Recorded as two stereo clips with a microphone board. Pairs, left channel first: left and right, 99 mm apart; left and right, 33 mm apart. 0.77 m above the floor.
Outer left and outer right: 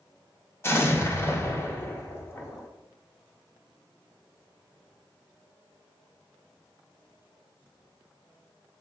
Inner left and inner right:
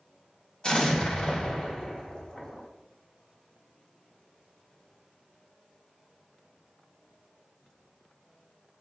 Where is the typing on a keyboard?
No typing on a keyboard in this recording.